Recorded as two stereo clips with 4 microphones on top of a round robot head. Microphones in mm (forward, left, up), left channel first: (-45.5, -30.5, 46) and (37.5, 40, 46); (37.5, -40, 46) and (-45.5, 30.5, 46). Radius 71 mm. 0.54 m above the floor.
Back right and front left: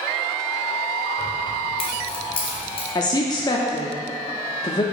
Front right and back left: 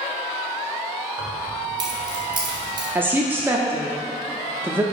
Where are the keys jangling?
175° right, 1.6 m.